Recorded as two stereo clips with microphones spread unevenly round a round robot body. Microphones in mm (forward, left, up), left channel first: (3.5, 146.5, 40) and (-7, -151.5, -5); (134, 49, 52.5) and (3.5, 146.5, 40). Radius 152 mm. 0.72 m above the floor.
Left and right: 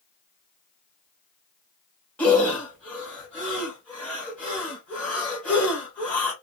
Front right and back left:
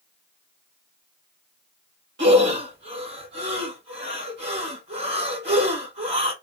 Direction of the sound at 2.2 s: 175° left.